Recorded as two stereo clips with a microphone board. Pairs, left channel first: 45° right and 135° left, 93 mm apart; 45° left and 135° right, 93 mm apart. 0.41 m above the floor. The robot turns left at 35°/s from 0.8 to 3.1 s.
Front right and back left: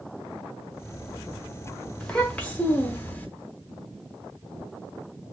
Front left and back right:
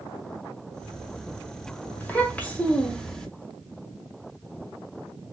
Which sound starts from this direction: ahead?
A child speaking, at 2.0 s.